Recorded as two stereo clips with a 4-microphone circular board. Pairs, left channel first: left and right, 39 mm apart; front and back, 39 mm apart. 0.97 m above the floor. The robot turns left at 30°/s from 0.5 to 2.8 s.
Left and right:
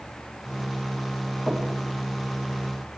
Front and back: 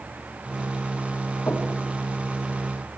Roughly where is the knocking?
Ahead.